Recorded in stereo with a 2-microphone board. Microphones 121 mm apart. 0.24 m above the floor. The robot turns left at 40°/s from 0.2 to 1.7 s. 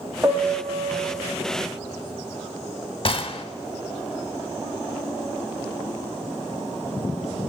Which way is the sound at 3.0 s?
45° left (ahead or behind).